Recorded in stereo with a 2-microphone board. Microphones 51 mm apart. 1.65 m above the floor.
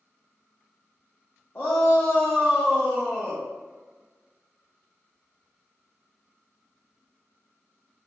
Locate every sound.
1.6 s a shout: 45° left (ahead or behind), 0.6 m